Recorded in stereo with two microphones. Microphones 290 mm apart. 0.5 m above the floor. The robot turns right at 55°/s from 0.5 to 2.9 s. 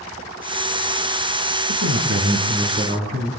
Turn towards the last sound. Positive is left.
turn(degrees=-35)